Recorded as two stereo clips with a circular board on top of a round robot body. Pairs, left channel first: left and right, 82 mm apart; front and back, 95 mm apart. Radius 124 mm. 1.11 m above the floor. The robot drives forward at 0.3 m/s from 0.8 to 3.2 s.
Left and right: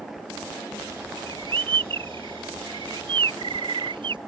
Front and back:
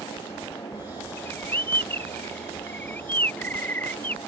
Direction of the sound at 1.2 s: 70° right.